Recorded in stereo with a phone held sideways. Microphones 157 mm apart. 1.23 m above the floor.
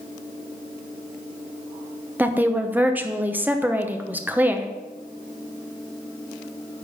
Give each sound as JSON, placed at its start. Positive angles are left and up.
{"t": 2.2, "sound": "a woman speaking", "side_deg": -10, "distance_m": 0.9}